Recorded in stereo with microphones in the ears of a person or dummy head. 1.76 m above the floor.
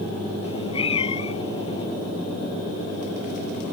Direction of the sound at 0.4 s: 35° left (ahead or behind).